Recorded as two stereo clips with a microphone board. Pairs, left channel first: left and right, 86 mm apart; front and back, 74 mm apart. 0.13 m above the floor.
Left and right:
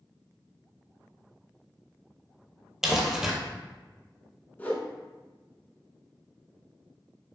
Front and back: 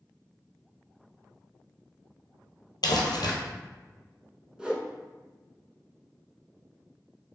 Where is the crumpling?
5° right, 0.8 m.